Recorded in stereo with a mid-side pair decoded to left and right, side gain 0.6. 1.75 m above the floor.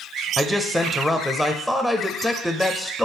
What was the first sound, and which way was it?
A man speaking, 5° right.